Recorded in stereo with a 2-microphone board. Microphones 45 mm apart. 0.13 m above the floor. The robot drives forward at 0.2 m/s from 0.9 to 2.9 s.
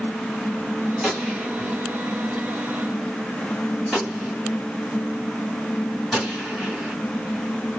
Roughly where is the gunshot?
Centre.